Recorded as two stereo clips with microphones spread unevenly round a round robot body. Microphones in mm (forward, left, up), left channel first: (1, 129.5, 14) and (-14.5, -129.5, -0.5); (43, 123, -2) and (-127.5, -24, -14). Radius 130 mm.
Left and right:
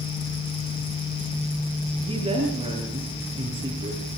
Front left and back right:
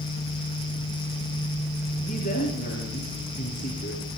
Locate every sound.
2.1 s a woman speaking: 25° right, 6.5 m